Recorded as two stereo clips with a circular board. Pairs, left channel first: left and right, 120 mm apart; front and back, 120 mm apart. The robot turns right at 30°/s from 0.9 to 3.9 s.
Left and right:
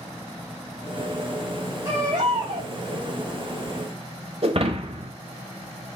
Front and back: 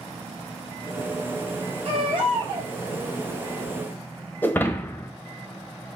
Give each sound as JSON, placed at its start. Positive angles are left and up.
{"t": 1.9, "sound": "a baby crying", "azimuth_deg": -150, "distance_m": 4.5}
{"t": 4.4, "sound": "breaking glass", "azimuth_deg": -70, "distance_m": 1.0}